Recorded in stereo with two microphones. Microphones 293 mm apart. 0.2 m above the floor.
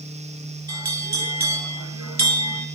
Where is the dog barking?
No dog barking in this recording.